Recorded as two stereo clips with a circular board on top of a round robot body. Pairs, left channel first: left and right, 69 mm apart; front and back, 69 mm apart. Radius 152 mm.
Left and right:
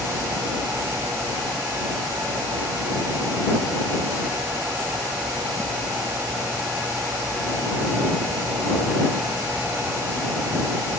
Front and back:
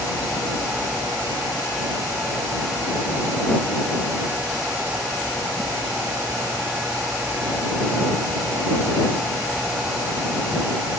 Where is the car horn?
I don't hear a car horn.